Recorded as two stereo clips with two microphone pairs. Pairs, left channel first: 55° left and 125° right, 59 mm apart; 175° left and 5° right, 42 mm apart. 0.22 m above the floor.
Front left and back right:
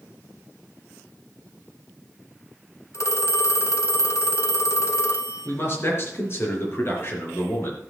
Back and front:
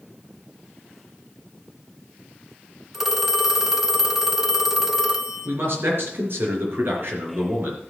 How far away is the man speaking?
About 4.5 m.